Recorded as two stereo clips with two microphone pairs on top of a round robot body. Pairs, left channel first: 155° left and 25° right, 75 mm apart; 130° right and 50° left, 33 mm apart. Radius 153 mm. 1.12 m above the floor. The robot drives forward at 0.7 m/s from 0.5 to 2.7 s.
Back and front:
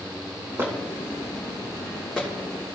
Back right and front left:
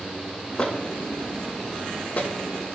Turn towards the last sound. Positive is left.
turn(degrees=-135)